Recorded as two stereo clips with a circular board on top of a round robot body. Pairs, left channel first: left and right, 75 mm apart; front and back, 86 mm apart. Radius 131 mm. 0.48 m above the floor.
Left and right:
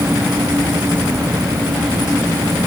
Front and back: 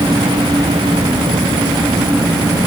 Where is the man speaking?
No man speaking in this recording.